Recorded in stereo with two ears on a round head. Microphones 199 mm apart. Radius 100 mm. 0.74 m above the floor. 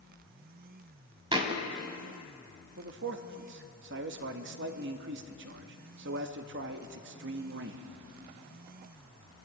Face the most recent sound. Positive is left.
turn(degrees=-55)  # may be behind; listen again after turning